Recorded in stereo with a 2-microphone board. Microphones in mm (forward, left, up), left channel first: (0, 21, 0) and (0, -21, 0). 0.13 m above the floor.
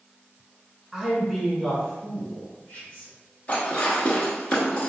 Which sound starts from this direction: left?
Dishes clattering, at 3.5 s.